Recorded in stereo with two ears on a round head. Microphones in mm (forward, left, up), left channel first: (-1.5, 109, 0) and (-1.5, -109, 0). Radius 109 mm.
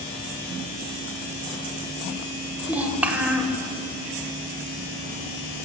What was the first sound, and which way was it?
A child speaking, 5° right (ahead or behind).